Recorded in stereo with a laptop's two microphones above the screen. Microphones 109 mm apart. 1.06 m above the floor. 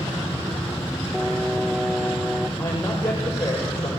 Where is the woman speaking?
25° left (ahead or behind), 5.5 m.